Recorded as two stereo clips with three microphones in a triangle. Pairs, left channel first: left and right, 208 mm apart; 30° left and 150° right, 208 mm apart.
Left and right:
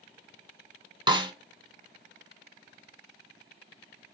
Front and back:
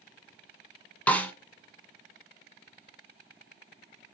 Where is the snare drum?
45° right, 1.2 m.